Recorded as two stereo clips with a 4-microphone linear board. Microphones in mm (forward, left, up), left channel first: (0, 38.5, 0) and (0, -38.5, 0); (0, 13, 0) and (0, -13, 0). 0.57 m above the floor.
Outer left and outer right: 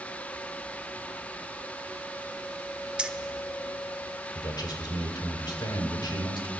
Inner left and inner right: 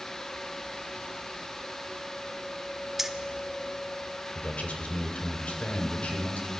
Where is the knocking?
No knocking in this recording.